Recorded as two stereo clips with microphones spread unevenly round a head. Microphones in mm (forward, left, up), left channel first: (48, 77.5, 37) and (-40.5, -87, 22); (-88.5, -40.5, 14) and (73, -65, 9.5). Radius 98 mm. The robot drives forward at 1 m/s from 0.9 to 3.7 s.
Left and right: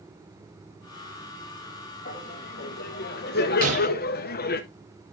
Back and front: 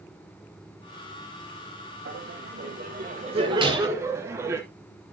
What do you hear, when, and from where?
2.0 s laughter: 15° left, 2 m; by 4.6 s 60° left, 0.9 m
3.6 s breaking glass: 70° right, 6.5 m